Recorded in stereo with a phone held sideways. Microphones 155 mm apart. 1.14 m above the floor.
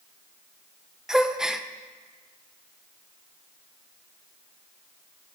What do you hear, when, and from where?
1.1 s a gasp: 5° right (ahead or behind), 0.7 m